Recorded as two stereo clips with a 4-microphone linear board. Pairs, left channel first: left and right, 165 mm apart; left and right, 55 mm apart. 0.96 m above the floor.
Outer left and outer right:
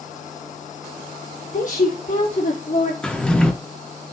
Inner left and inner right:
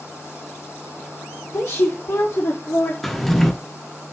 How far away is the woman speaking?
About 1.0 m.